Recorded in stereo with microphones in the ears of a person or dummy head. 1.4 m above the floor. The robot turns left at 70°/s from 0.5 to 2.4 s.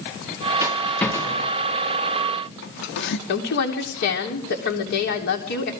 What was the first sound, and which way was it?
A rattle, 20° right (ahead or behind).